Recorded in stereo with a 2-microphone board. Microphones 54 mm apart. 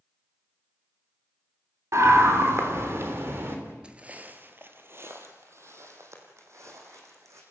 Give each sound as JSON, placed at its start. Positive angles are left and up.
{"t": 1.9, "sound": "a scream", "side_deg": -65, "distance_m": 3.5}
{"t": 3.8, "sound": "footsteps", "side_deg": -20, "distance_m": 1.4}